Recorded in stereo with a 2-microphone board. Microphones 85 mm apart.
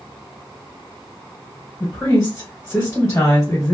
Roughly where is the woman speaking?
Left.